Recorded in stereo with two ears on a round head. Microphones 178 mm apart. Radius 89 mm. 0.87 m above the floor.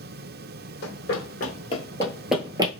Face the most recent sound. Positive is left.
turn(degrees=-25)  # may be behind; listen again after turning